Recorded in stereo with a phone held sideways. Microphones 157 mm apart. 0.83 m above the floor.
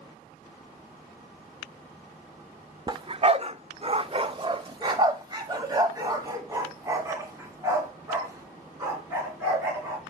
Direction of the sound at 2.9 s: 30° right (ahead or behind).